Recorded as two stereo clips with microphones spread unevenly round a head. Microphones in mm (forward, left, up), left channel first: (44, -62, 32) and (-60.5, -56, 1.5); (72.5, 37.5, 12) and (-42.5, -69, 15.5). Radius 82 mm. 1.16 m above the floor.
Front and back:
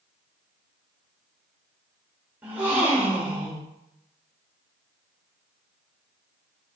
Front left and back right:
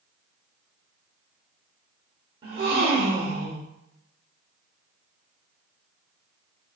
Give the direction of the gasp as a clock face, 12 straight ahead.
3 o'clock.